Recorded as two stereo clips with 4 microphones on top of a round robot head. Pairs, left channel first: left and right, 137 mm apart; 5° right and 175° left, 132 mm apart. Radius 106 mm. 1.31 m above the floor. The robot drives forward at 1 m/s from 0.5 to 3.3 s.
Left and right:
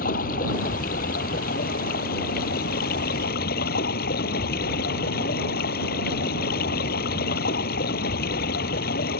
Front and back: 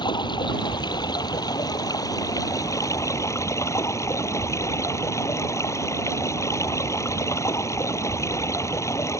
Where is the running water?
50° left; by 9.2 s 65° left.